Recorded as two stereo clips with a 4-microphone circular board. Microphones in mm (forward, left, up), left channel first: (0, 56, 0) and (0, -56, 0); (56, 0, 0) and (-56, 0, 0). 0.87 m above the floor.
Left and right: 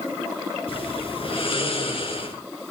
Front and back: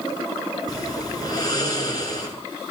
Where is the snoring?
55° left, 6 m.